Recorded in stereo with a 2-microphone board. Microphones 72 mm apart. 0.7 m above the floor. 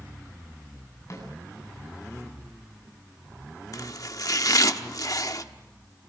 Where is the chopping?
60° left (ahead or behind), 1.0 m.